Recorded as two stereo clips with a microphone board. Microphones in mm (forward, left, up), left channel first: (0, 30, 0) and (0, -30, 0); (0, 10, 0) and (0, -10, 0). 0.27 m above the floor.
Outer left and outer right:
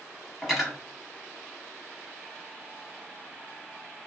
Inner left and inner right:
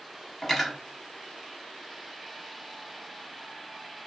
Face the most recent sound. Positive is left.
turn(degrees=-5)  # may be behind; listen again after turning